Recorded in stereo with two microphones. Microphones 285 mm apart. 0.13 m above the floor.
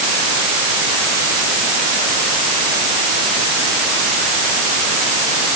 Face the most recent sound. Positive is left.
No sound to turn to.